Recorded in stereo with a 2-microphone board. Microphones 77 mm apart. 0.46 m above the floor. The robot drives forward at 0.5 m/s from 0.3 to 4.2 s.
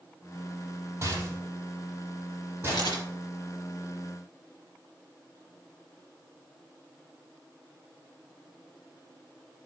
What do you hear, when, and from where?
1.0 s a rattle: 35° right (ahead or behind), 3.5 m; by 3.0 s 25° right (ahead or behind), 4.5 m
2.7 s a camera shutter: 65° left (ahead or behind), 3.5 m